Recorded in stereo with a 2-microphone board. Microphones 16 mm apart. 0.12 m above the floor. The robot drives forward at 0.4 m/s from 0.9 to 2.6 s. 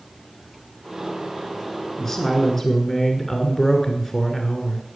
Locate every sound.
2.0 s a woman speaking: 30° left (ahead or behind), 1.4 m